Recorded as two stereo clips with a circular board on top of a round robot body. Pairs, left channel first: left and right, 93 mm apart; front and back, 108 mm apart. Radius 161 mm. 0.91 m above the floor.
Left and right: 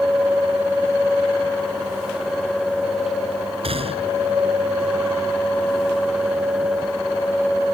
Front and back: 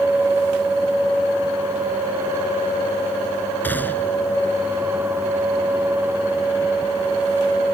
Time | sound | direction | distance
3.6 | a gunshot | 75° right | ?